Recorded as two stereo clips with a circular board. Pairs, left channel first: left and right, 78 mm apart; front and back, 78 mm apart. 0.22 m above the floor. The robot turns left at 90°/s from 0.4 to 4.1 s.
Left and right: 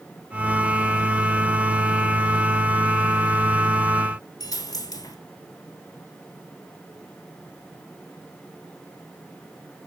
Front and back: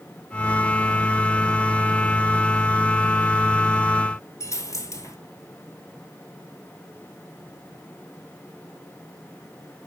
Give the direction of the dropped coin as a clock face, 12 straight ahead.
10 o'clock.